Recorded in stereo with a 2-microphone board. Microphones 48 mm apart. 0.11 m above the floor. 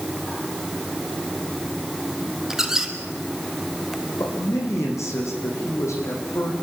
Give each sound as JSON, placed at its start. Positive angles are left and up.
{"t": 2.5, "sound": "a squeak", "side_deg": -10, "distance_m": 2.0}
{"t": 4.2, "sound": "a man speaking", "side_deg": 75, "distance_m": 6.5}